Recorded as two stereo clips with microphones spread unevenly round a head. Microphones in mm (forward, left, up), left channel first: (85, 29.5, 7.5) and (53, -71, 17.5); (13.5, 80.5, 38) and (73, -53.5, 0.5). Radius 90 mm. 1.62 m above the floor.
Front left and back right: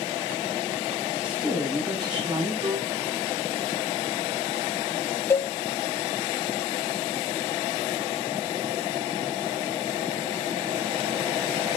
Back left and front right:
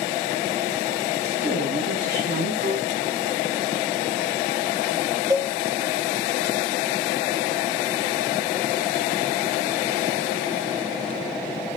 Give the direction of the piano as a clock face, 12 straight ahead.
3 o'clock.